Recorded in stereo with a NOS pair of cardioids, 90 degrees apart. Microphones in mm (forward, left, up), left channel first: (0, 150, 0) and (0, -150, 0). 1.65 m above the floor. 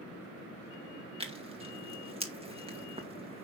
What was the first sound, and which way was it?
Tearing paper, 20° right.